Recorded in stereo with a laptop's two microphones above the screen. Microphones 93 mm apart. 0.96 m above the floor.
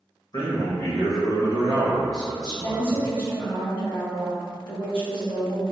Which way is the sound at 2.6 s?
55° left (ahead or behind).